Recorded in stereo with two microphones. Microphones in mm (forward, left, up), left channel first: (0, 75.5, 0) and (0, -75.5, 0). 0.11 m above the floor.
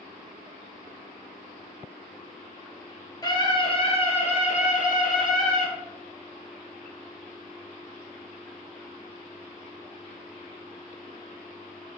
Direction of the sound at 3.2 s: 25° left (ahead or behind).